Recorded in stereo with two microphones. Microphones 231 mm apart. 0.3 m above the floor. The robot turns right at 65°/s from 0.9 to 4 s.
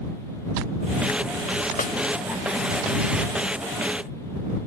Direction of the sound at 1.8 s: 35° left (ahead or behind).